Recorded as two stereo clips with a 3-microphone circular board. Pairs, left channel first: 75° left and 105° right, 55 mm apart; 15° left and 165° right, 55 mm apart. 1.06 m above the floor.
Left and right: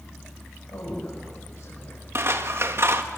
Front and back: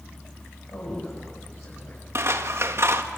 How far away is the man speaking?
About 7.5 m.